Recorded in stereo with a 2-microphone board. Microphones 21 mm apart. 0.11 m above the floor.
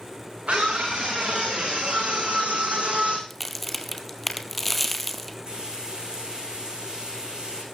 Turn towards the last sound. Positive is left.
turn(degrees=-35)  # may be behind; listen again after turning